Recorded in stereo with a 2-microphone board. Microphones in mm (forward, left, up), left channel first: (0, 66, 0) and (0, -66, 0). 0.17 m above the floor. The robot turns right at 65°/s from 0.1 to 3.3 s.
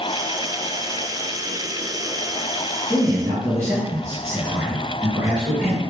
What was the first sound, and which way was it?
A man speaking, 15° right (ahead or behind).